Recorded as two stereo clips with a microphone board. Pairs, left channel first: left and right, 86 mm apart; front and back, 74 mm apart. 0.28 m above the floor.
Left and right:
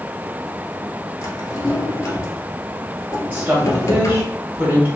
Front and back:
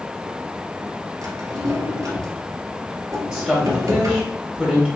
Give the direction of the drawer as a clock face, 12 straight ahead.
7 o'clock.